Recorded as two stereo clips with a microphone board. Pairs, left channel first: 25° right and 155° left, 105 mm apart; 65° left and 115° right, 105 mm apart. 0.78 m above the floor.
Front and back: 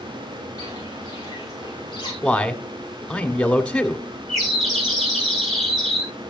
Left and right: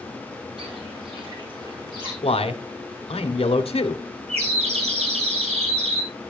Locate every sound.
0.6 s footsteps: 75° right, 5.5 m; by 2.1 s 65° right, 5.5 m
2.2 s a man speaking: 55° left, 1.9 m
4.3 s a bird: 110° right, 9 m